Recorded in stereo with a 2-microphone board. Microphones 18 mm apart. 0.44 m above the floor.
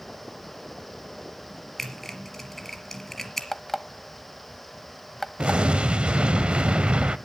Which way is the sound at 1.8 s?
15° left (ahead or behind).